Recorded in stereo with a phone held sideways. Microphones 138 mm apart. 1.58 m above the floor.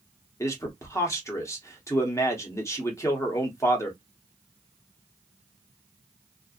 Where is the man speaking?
20° left (ahead or behind), 1.0 m.